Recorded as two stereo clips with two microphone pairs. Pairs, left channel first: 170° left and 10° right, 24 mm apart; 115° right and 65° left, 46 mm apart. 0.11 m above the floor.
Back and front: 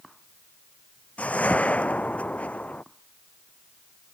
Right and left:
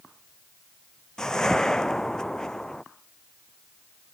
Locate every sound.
1.2 s a whoosh: 165° left